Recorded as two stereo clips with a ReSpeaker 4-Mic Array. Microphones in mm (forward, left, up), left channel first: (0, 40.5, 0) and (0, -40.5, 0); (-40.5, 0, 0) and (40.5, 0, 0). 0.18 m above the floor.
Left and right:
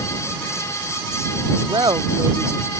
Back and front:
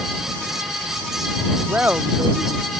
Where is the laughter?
70° right; by 2.7 s 65° right.